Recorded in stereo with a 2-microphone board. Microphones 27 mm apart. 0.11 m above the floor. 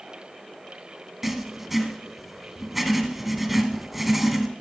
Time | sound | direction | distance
1.2 | writing | 10° right (ahead or behind) | 1.7 m